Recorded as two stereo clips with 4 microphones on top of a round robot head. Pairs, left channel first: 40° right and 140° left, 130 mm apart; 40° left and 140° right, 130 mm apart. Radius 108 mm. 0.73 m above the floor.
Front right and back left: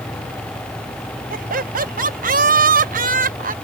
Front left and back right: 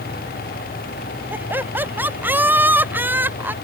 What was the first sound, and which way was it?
Laughter, 145° left.